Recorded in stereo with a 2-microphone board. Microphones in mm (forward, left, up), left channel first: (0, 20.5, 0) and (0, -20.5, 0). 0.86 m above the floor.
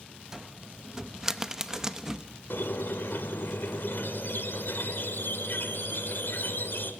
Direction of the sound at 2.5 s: 65° left (ahead or behind).